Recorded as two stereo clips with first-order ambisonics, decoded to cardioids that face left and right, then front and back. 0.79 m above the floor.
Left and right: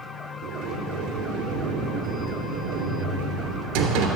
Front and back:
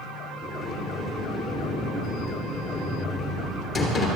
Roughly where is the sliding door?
Right.